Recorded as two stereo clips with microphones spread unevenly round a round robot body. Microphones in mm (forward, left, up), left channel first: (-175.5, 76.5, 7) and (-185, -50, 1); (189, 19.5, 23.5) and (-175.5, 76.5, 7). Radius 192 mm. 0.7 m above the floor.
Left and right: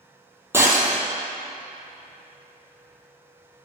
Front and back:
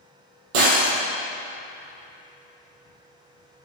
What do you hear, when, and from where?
0.5 s breaking glass: 170° right, 3.5 m